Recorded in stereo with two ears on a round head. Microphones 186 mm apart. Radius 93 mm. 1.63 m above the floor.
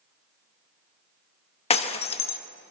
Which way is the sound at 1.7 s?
30° left (ahead or behind).